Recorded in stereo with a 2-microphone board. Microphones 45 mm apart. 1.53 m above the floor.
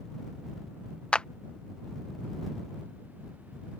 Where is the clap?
20° left (ahead or behind).